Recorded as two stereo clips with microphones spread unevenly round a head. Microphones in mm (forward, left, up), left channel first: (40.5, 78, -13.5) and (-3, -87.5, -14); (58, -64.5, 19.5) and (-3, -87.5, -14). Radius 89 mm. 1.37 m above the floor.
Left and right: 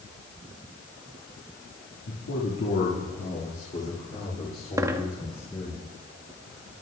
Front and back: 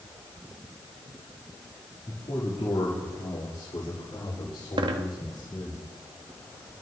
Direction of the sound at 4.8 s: 175° right.